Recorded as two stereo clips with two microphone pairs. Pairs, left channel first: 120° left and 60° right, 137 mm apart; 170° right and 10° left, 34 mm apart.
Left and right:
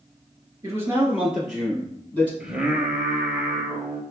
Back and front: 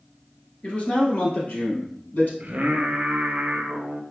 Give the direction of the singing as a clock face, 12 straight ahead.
11 o'clock.